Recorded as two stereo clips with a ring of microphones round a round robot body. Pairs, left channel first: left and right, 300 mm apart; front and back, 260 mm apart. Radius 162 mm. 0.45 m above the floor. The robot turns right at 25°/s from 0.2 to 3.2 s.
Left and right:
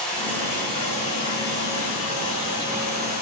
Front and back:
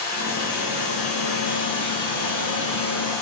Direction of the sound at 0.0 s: 5° left.